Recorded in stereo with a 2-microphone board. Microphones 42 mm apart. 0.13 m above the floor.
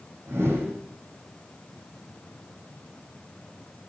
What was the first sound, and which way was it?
A whoosh, 80° right.